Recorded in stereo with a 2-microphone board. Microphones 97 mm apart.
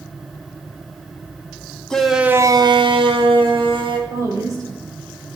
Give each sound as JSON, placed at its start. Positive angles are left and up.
{"t": 1.9, "sound": "a shout", "side_deg": 10, "distance_m": 0.9}
{"t": 4.1, "sound": "a woman speaking", "side_deg": -40, "distance_m": 3.5}